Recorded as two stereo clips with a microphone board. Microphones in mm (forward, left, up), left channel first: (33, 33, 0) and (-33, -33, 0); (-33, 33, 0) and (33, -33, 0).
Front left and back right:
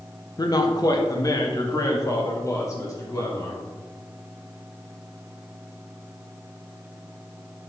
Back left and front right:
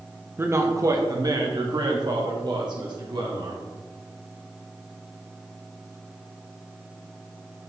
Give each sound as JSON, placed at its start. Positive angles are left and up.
{"t": 0.4, "sound": "a man speaking", "azimuth_deg": 15, "distance_m": 0.8}